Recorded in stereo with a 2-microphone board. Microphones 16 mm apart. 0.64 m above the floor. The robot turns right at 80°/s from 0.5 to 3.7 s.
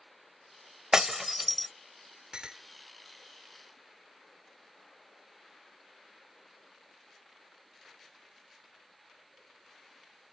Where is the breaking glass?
45° right (ahead or behind); by 1.7 s 15° left (ahead or behind).